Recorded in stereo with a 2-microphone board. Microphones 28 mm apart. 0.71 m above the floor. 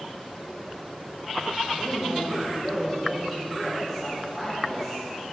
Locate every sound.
1.7 s a woman speaking: 10° left (ahead or behind), 1.9 m